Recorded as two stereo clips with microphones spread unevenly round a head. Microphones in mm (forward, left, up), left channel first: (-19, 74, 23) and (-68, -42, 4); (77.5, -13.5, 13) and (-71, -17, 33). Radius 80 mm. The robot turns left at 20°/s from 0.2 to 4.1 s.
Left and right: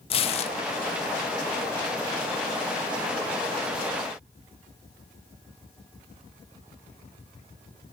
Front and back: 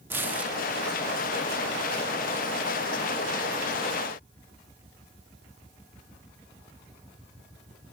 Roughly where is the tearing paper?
Left.